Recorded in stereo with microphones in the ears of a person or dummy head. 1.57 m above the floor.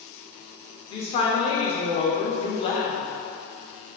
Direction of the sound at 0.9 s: 30° left (ahead or behind).